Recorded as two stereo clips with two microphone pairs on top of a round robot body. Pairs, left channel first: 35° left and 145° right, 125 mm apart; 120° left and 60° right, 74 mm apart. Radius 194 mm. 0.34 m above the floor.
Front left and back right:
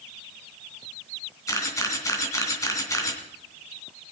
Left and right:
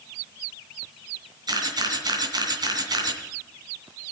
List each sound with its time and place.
1.5 s a camera shutter: 30° right, 3 m